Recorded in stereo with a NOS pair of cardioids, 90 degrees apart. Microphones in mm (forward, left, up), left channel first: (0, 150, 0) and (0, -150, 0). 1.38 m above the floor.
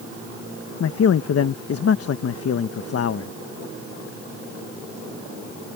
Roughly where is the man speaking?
Ahead left.